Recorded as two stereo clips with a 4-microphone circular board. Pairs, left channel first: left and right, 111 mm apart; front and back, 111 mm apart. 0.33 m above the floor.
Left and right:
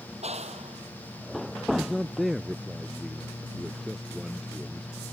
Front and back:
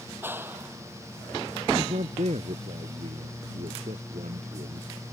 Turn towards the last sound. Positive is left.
turn(degrees=180)